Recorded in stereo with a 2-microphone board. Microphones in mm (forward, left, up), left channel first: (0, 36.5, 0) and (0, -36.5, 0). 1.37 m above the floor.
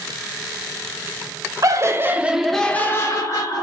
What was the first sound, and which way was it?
Laughter, 50° right (ahead or behind).